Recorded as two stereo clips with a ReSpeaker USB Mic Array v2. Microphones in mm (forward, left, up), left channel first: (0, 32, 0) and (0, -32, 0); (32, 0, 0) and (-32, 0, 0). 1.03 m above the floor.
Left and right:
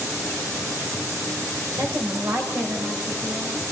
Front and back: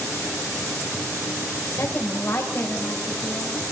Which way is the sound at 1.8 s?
50° right.